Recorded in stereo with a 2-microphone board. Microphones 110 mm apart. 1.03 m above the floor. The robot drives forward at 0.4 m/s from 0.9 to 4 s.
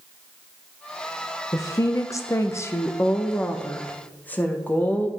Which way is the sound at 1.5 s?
25° left (ahead or behind).